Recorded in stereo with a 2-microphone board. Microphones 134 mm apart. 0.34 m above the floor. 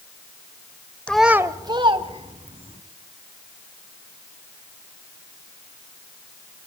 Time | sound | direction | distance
1.1 | a child speaking | 10° left (ahead or behind) | 0.7 m